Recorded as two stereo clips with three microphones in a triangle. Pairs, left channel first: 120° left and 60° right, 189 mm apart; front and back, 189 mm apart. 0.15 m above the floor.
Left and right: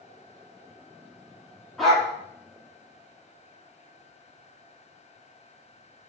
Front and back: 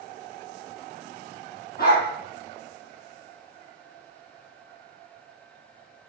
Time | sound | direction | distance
1.8 | a dog barking | 30° left | 1.4 m